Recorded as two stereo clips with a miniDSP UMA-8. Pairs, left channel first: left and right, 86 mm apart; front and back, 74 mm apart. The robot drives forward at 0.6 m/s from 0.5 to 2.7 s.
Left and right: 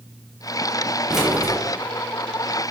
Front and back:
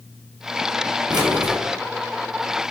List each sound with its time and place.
1.1 s keys jangling: 175° right, 2 m